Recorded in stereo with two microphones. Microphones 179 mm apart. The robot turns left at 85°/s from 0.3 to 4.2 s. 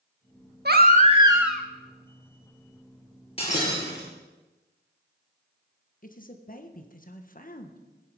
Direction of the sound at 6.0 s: 50° left (ahead or behind).